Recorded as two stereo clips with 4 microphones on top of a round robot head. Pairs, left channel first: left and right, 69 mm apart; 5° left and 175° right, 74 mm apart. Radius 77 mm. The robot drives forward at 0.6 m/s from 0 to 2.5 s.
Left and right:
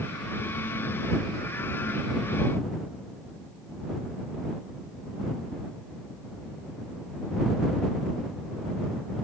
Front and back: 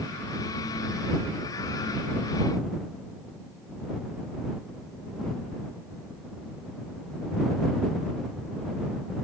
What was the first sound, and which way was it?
Only background noise.